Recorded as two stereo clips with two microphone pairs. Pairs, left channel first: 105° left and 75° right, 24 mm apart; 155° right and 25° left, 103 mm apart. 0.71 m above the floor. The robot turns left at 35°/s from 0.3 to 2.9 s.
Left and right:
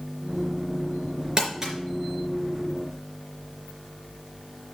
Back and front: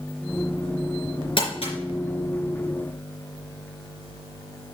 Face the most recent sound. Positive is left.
turn(degrees=180)